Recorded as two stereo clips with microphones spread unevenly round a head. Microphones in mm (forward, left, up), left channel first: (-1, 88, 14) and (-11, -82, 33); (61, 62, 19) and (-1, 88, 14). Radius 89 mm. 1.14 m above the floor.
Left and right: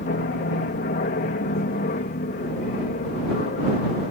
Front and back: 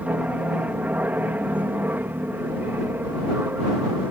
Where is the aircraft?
95° left; by 4.1 s 110° left.